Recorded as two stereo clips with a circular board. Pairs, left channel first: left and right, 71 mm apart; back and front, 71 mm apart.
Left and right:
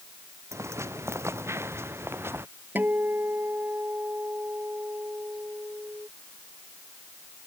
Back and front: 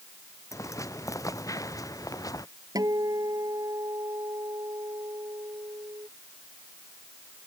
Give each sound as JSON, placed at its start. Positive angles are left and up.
{"t": 0.5, "sound": "footsteps", "azimuth_deg": -140}
{"t": 2.8, "sound": "a guitar", "azimuth_deg": -30}